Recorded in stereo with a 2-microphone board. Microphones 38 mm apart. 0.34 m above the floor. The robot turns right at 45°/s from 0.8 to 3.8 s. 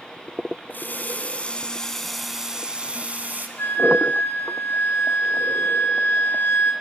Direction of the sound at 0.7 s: 115° left.